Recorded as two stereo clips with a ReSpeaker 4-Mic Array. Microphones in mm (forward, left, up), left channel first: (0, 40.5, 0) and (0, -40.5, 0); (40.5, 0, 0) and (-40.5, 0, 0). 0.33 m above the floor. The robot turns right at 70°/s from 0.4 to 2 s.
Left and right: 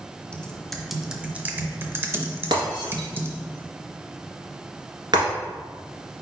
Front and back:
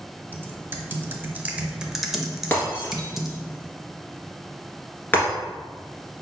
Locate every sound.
0.3 s typing on a keyboard: 150° left, 0.6 m; by 3.4 s 100° right, 0.6 m
2.5 s breaking glass: 65° right, 1.5 m